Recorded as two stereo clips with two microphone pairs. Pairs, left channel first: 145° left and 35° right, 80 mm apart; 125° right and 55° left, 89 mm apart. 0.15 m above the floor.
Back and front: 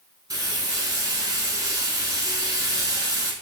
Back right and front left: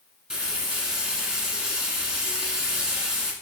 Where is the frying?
25° right, 1.0 m.